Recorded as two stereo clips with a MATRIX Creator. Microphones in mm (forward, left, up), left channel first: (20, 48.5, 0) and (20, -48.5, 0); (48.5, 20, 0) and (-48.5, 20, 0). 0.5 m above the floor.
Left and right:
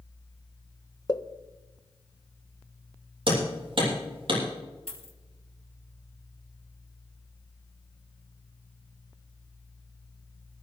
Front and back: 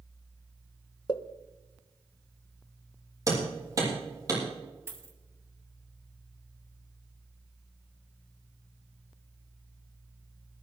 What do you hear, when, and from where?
1.1 s a pop: 40° left, 0.9 m
3.3 s hammering: 125° right, 7 m
4.9 s a dropped coin: 115° left, 2 m